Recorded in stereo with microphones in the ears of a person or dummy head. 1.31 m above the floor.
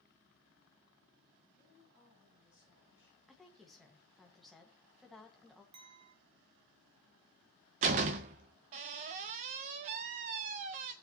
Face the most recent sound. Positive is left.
turn(degrees=-30)  # may be behind; listen again after turning